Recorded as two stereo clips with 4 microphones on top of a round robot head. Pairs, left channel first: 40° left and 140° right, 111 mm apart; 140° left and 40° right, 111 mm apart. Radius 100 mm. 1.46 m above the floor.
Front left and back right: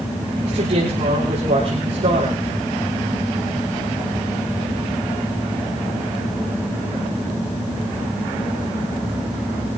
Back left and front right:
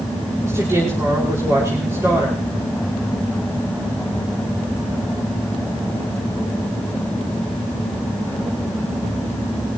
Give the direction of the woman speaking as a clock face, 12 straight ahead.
3 o'clock.